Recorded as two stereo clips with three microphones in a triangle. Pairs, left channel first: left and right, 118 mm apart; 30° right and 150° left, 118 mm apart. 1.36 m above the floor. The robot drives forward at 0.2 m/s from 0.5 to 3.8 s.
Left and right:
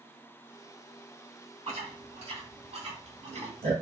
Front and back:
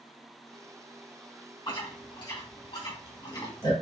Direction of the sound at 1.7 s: 70° right.